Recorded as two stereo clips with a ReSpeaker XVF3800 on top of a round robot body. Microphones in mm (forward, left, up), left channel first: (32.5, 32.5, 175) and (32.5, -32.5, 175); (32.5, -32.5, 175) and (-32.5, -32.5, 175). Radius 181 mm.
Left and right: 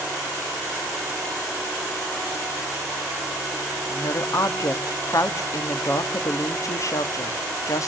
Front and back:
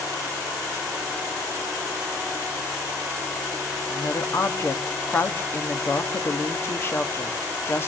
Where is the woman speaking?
55° left, 1.6 m.